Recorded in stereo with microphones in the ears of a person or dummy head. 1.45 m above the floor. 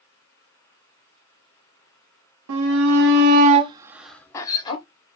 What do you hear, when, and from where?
2.5 s a shout: 85° right, 1.0 m; by 4.8 s 25° left (ahead or behind), 1.2 m